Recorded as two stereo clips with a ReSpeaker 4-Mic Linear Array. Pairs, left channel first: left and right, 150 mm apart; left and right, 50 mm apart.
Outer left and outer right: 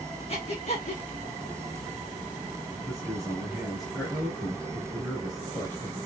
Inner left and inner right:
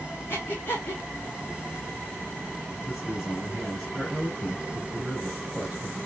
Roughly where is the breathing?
Left.